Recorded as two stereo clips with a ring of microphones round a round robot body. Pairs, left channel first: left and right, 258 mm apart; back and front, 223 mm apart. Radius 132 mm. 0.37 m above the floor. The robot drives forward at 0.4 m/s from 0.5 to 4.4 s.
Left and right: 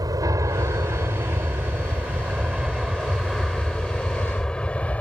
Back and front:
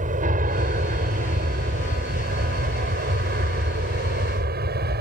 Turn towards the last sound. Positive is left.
turn(degrees=10)